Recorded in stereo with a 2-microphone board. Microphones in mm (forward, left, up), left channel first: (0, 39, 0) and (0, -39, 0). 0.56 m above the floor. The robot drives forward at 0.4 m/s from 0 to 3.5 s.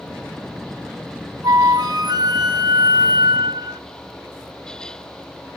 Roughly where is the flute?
Right.